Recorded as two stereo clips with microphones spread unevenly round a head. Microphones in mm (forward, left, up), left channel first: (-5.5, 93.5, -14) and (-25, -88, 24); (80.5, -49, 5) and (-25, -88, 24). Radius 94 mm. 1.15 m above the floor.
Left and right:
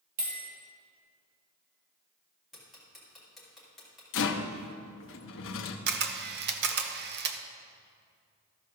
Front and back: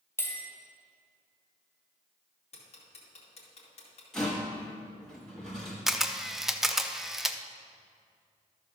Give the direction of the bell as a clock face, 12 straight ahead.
1 o'clock.